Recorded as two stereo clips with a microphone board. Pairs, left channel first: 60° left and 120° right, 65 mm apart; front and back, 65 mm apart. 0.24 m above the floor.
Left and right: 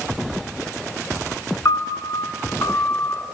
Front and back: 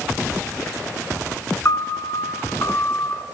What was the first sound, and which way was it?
A piano, 35° left.